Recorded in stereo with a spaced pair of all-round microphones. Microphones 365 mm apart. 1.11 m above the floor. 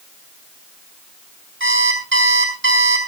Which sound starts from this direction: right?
An alarm clock, at 1.6 s.